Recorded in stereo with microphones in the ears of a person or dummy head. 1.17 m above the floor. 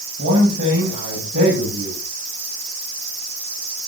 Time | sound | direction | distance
0.2 | a man speaking | 60° right (ahead or behind) | 9 m